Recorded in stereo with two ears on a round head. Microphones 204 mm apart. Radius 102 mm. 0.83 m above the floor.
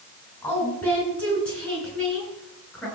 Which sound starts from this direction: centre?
A woman speaking, at 0.4 s.